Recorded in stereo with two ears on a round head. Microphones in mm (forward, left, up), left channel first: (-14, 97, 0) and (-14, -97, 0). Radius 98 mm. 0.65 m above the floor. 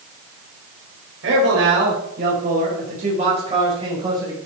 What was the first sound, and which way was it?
A man speaking, 60° right (ahead or behind).